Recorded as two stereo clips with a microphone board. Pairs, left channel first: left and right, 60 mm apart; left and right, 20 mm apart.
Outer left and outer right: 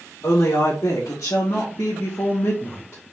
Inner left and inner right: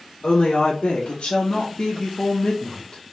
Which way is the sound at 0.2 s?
65° left (ahead or behind).